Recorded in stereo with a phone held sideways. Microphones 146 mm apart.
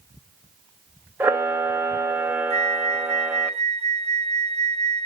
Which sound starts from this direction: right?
A flute, at 2.5 s.